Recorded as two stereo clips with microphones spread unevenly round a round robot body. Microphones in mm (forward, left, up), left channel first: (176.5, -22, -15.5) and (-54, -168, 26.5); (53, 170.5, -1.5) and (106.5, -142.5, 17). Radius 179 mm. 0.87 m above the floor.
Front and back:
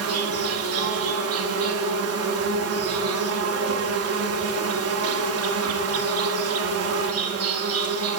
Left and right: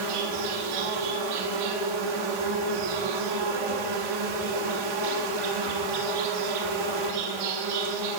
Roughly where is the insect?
Right.